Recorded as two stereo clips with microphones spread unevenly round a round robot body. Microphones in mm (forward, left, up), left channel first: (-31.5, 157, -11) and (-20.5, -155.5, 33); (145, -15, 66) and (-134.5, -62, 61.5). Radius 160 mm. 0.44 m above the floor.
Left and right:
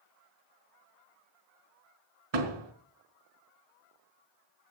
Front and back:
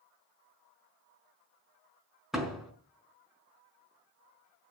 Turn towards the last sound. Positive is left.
turn(degrees=-80)